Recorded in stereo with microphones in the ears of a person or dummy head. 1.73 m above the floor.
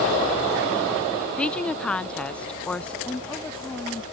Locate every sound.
1.4 s a woman speaking: centre (ahead or behind)
3.0 s a woman speaking: 5° left (ahead or behind)